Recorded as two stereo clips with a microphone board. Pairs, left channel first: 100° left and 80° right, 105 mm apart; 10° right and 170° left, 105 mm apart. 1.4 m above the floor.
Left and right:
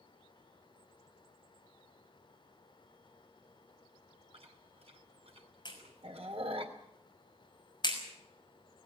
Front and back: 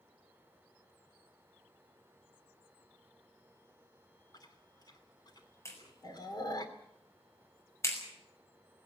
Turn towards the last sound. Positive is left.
turn(degrees=55)